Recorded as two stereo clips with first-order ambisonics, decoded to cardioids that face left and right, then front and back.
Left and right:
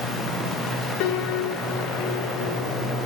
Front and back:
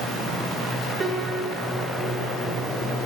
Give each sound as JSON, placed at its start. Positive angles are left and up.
{"t": 1.0, "sound": "a piano", "azimuth_deg": 105, "distance_m": 3.0}